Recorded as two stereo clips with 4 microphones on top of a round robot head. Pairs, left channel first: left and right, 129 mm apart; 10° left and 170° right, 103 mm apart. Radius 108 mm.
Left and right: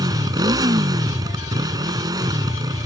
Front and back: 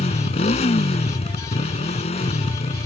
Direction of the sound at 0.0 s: 30° right.